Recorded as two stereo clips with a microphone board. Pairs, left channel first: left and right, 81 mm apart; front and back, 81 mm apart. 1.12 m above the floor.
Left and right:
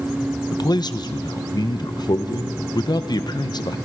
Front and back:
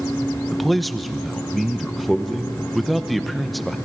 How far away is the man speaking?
About 0.8 m.